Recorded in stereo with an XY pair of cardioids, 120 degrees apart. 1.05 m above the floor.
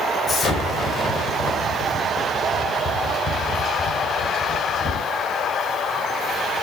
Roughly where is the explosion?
Ahead left.